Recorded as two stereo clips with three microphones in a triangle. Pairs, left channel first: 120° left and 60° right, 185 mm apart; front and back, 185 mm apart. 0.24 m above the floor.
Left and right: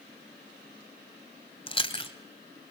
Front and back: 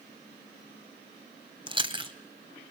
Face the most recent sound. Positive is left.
turn(degrees=150)